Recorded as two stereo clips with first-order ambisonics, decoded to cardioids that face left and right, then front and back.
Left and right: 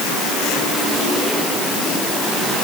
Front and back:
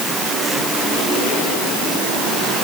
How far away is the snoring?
No snoring in this recording.